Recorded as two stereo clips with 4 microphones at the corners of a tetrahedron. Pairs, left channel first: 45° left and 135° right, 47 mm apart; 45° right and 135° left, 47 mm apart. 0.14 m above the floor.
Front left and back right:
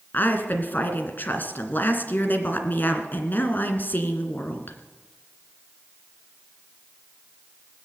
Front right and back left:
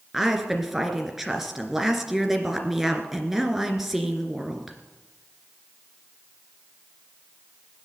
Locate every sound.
0.1 s a woman speaking: 55° left, 2 m